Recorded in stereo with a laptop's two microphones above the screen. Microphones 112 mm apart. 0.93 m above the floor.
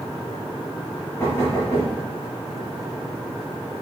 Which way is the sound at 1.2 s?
30° left (ahead or behind).